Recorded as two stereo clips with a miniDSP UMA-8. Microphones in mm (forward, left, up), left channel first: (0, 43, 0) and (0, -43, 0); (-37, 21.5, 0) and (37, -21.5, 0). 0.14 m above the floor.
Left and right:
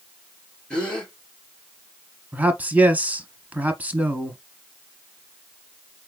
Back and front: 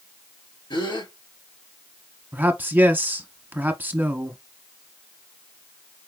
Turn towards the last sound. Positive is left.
turn(degrees=-50)